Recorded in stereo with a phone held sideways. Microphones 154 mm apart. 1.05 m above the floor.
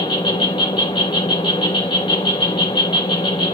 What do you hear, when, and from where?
0.0 s an insect: 35° left (ahead or behind), 2.5 m